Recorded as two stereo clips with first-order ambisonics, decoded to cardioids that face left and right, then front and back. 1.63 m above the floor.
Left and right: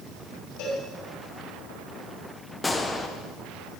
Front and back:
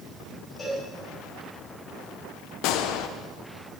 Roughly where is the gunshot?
Ahead.